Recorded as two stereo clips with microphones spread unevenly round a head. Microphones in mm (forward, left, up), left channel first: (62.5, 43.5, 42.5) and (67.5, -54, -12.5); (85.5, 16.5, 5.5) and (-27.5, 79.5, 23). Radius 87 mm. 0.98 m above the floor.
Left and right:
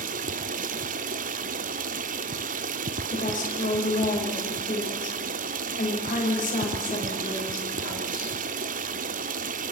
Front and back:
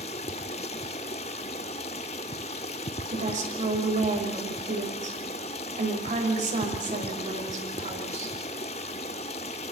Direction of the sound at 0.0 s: 90° right.